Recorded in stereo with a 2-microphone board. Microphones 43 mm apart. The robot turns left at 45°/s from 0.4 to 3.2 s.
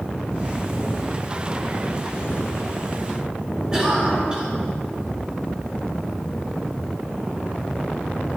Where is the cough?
20° right (ahead or behind), 3 m.